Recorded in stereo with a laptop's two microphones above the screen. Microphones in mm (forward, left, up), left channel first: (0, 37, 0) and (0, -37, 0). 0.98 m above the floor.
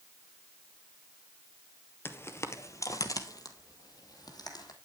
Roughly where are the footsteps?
Left.